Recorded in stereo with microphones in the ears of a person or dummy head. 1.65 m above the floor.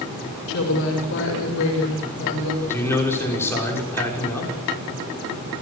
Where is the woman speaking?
75° left (ahead or behind), 5 m.